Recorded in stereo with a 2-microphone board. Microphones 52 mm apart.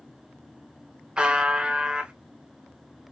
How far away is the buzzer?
About 0.8 m.